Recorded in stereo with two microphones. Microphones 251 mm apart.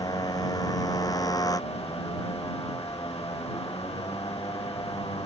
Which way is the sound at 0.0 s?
15° left (ahead or behind).